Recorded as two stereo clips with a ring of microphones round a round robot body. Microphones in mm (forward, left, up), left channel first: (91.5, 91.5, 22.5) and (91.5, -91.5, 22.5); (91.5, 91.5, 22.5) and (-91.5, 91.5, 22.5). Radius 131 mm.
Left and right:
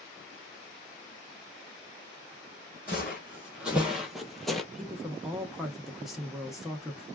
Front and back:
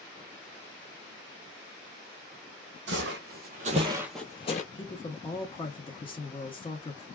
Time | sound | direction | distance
2.9 | footsteps | 175° right | 1.0 m
4.7 | a woman speaking | straight ahead | 0.8 m